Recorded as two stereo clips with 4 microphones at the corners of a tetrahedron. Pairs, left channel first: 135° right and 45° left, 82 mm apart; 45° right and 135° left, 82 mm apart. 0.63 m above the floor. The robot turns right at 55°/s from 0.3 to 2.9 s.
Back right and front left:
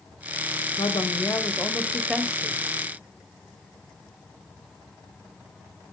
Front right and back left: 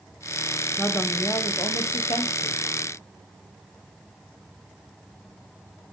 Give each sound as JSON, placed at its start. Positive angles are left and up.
{"t": 0.8, "sound": "a woman speaking", "azimuth_deg": -115, "distance_m": 3.0}